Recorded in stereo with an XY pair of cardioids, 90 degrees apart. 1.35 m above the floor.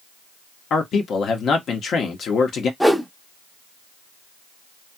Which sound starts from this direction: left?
A man speaking, at 0.7 s.